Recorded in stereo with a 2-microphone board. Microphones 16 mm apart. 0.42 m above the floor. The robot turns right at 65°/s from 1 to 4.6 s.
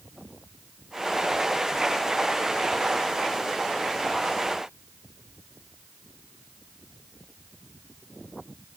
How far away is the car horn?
No car horn in this recording.